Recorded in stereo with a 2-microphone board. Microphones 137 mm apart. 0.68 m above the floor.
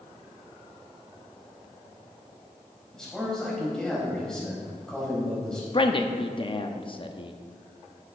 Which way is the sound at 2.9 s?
5° left (ahead or behind).